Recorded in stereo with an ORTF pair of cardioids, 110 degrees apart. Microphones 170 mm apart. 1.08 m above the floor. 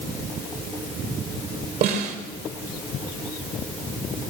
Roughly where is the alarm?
No alarm in this recording.